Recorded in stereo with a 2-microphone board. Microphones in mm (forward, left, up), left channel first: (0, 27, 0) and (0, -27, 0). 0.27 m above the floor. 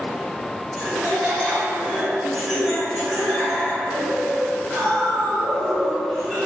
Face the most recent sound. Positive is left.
turn(degrees=-5)  # may be behind; listen again after turning